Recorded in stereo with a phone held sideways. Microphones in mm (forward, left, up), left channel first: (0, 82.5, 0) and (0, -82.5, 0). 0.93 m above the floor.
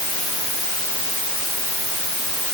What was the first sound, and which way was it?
Only background noise.